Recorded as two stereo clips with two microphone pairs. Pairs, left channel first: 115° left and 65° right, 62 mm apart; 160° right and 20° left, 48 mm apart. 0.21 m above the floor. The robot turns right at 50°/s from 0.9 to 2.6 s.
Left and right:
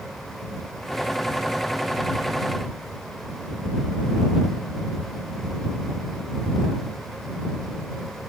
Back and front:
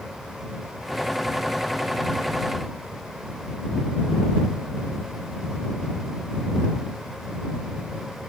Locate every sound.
Only background noise.